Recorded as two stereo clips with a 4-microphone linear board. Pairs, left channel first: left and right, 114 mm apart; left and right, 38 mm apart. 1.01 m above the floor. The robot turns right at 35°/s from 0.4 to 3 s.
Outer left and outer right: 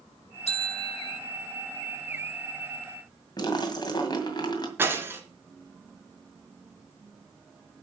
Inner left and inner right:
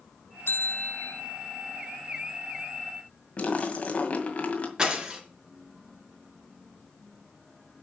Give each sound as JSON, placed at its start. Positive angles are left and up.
{"t": 0.5, "sound": "a bell", "side_deg": 65, "distance_m": 1.4}
{"t": 3.4, "sound": "a splash", "side_deg": 40, "distance_m": 1.9}
{"t": 4.8, "sound": "breaking glass", "side_deg": -20, "distance_m": 1.9}